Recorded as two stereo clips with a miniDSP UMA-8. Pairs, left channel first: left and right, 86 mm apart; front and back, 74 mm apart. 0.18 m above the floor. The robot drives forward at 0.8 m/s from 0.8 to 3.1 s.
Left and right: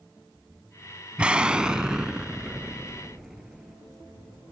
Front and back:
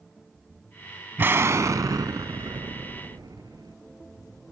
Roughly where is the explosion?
Behind right.